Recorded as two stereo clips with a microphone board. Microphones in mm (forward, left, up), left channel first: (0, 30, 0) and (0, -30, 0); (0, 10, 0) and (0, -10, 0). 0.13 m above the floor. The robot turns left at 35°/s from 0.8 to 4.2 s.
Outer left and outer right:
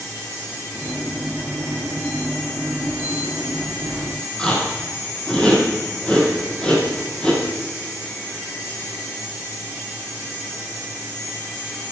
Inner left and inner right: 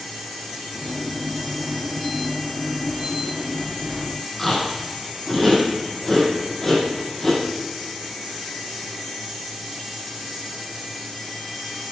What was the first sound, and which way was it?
Chewing, 15° left (ahead or behind).